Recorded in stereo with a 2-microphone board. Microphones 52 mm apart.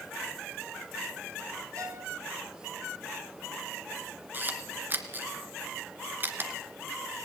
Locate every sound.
1.8 s a violin: 65° right (ahead or behind), 4.5 m
4.3 s a camera shutter: 35° right (ahead or behind), 2.0 m